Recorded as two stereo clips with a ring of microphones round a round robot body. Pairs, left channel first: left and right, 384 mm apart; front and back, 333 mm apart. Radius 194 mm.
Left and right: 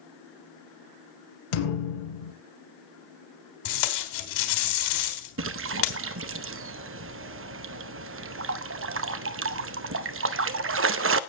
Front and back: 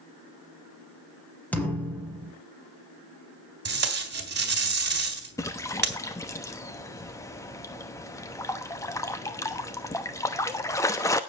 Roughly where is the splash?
Right.